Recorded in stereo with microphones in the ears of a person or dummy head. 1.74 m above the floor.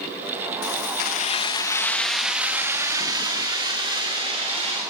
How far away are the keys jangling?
About 1.7 m.